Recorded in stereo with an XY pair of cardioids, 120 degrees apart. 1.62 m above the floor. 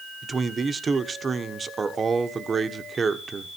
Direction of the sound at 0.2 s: 30° right.